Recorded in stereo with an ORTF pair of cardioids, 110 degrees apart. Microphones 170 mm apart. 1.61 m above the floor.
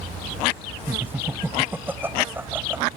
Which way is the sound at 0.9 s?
10° right.